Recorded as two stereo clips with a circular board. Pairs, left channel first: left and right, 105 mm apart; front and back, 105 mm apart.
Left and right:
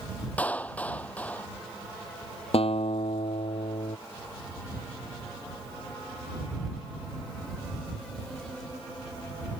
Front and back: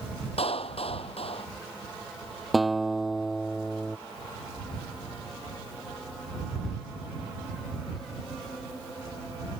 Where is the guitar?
90° left.